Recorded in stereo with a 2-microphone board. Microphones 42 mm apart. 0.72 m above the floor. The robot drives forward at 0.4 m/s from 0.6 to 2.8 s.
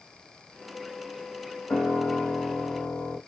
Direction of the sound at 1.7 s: 60° left (ahead or behind).